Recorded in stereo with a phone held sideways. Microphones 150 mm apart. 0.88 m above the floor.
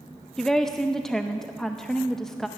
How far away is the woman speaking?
About 0.5 m.